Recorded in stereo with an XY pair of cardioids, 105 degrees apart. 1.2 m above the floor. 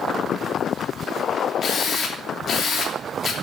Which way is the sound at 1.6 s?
45° left.